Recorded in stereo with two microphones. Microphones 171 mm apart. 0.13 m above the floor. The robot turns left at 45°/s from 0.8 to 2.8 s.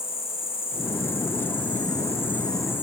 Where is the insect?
100° left, 1.5 m; by 2.8 s 10° left, 1.5 m.